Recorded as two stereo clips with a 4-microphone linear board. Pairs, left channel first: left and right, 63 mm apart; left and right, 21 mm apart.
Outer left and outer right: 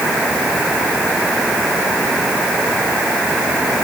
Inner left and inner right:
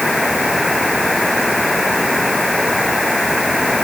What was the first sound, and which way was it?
Only background noise.